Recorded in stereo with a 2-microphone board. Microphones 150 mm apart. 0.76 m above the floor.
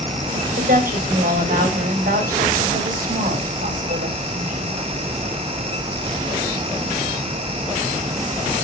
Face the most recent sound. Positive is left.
turn(degrees=-75)  # may be behind; listen again after turning